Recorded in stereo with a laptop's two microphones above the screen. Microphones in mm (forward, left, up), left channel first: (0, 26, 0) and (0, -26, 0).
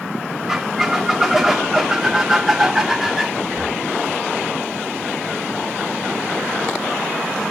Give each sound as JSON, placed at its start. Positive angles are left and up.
{"t": 0.5, "sound": "a squeak", "side_deg": -5, "distance_m": 1.3}
{"t": 3.4, "sound": "breathing", "side_deg": -45, "distance_m": 1.7}